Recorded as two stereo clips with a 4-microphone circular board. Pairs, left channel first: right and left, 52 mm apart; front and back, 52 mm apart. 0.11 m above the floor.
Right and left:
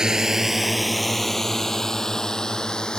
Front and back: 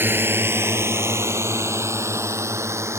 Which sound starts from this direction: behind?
A drone, at 0.0 s.